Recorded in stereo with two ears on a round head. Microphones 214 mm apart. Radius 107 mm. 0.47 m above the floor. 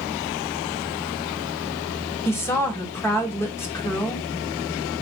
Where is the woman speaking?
10° left (ahead or behind), 1.2 m.